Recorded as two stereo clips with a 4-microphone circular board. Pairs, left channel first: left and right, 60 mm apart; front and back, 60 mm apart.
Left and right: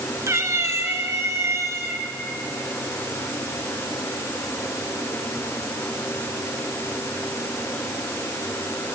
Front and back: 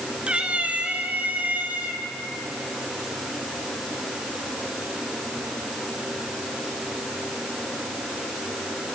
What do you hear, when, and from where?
0.3 s a cat meowing: 115° right, 1.4 m; by 2.0 s 120° right, 3 m